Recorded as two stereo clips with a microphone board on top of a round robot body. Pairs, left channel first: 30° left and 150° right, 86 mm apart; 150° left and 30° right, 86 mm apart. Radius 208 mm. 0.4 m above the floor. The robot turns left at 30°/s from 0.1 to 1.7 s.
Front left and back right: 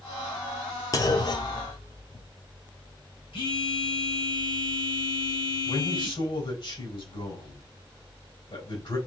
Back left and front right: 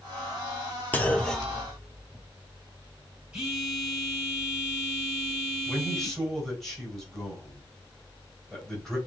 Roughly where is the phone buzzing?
Ahead left.